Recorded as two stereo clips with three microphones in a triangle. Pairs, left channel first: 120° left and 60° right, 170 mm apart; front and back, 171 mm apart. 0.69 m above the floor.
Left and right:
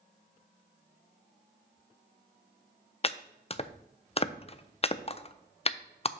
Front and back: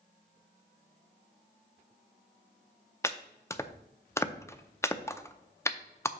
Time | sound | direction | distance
3.0 | chopping | 70° left | 0.5 m